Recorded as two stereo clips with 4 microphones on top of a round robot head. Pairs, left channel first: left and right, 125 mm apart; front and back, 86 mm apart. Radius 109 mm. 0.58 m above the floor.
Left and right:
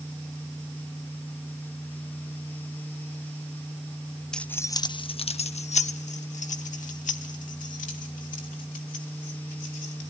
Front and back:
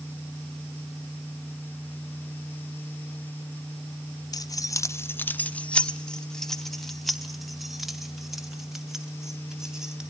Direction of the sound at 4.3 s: 5° left.